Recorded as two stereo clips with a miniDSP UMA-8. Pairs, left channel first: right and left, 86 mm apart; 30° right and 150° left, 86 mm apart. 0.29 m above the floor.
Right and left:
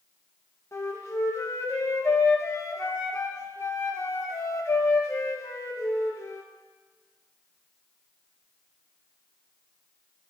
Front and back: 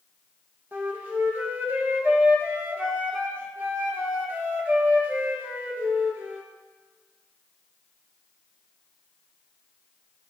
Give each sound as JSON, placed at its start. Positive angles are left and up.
{"t": 0.7, "sound": "a flute", "azimuth_deg": -145, "distance_m": 1.4}